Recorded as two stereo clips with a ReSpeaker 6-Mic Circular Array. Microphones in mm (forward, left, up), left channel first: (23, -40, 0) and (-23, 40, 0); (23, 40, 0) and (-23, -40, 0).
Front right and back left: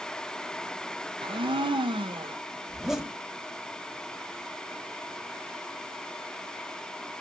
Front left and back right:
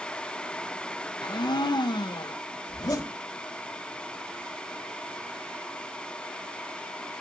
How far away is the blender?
About 0.6 m.